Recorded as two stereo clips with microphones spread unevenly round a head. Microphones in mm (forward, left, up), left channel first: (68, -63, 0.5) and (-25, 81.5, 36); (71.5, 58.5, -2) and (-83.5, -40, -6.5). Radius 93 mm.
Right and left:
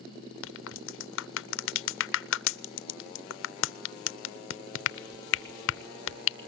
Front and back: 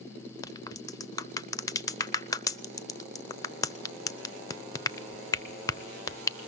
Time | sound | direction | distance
0.4 | a crack | 40° right | 0.7 m